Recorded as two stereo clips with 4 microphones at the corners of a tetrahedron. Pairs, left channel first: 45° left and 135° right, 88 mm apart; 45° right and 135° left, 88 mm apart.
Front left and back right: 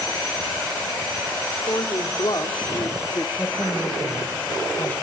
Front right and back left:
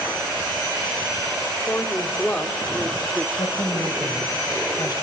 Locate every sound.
1.7 s a woman speaking: 15° left, 2 m; by 3.3 s 80° left, 1.2 m
3.4 s a woman speaking: 25° right, 2 m